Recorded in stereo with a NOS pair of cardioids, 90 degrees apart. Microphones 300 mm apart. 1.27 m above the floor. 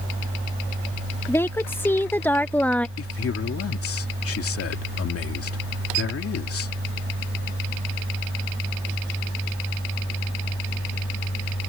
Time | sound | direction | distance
1.3 | a woman speaking | 10° left | ?
3.0 | a man speaking | 50° left | ?